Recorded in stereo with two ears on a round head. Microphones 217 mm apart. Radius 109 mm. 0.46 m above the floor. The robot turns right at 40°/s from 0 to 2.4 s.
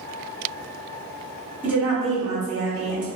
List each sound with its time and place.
1.6 s a woman speaking: 10° right (ahead or behind), 1.4 m; by 3.1 s 20° right (ahead or behind), 1.4 m